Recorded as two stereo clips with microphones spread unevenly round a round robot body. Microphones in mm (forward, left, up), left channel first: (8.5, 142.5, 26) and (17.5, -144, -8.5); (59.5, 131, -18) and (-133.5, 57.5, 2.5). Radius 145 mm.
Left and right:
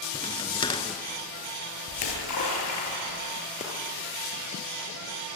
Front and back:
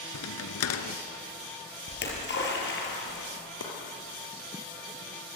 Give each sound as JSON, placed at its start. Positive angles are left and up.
{"t": 0.1, "sound": "a crack", "azimuth_deg": 15, "distance_m": 1.4}
{"t": 1.9, "sound": "a splash", "azimuth_deg": 55, "distance_m": 6.5}
{"t": 3.6, "sound": "chopping", "azimuth_deg": 25, "distance_m": 5.5}